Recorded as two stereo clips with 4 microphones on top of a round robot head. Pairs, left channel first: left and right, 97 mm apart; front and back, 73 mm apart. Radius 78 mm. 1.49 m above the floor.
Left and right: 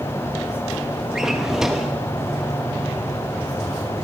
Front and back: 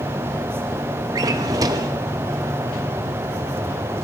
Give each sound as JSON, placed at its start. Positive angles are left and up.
{"t": 1.1, "sound": "a drawer", "azimuth_deg": -175, "distance_m": 0.9}